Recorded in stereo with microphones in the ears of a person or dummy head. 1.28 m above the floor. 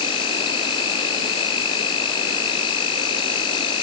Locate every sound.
0.0 s an insect: 30° left (ahead or behind)